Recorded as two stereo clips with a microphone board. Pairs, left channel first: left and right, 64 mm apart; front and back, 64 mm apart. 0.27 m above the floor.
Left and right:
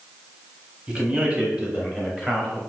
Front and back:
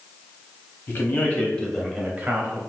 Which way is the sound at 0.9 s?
25° right.